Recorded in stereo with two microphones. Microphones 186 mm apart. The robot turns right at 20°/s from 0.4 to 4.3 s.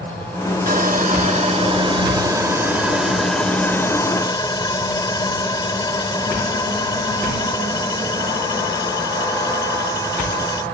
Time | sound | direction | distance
0.7 | sawing | 50° right | ?